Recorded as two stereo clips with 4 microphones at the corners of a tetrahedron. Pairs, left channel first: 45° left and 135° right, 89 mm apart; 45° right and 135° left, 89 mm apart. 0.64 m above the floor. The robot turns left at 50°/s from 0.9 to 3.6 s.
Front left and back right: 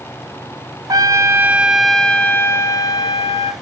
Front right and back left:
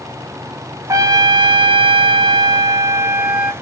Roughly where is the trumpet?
Behind.